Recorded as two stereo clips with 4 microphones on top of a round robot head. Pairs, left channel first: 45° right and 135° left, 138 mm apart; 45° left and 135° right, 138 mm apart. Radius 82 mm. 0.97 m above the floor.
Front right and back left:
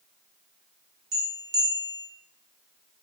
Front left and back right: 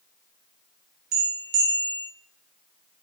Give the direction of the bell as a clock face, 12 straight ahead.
5 o'clock.